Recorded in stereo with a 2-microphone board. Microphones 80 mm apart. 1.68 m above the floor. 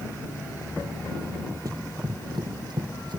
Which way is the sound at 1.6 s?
45° right (ahead or behind).